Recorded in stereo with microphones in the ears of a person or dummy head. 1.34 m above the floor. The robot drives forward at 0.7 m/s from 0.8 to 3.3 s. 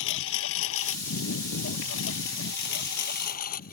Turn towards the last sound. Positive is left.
turn(degrees=50)  # may be behind; listen again after turning